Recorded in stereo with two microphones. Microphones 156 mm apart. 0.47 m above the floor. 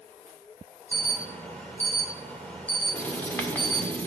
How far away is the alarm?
About 2.0 m.